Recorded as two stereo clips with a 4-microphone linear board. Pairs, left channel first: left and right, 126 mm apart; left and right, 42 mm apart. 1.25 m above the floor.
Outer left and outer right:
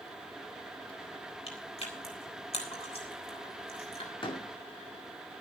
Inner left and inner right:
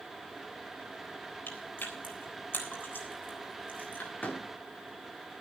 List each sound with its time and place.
1.5 s chewing: 55° left (ahead or behind), 3.5 m
4.2 s a door slam: 40° left (ahead or behind), 2 m